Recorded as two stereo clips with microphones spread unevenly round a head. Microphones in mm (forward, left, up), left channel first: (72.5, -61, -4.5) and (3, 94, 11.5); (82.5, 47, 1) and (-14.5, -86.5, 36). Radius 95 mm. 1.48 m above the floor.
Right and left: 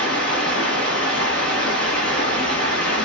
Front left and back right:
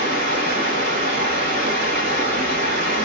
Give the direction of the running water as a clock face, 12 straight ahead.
4 o'clock.